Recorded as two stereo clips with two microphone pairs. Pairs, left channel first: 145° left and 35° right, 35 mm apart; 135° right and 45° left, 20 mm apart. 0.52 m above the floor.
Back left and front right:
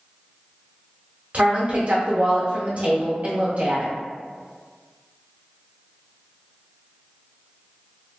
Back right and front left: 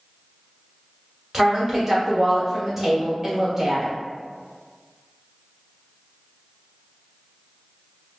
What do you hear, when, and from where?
1.3 s a woman speaking: 25° right, 1.1 m